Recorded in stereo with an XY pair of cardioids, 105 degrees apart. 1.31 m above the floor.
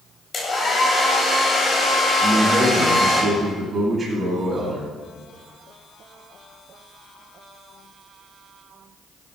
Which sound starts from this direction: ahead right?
A man speaking, at 2.2 s.